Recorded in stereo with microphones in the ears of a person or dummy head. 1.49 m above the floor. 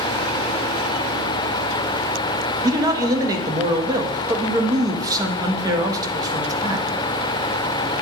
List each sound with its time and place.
2.6 s a man speaking: 20° right (ahead or behind), 1.2 m